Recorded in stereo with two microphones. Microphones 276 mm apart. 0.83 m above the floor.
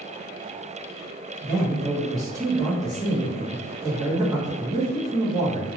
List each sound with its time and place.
1.4 s a man speaking: 15° right (ahead or behind), 0.8 m